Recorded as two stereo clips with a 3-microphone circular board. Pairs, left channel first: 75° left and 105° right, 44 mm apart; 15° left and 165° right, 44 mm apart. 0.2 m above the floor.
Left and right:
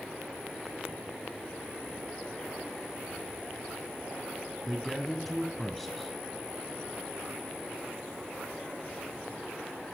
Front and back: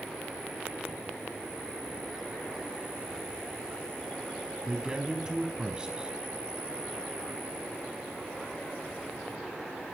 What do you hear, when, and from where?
4.7 s a man speaking: 160° left, 1.3 m